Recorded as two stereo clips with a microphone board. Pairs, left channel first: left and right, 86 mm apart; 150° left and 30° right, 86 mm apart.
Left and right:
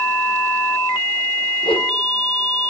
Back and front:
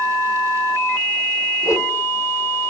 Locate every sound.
1.6 s a whoosh: 95° left, 2 m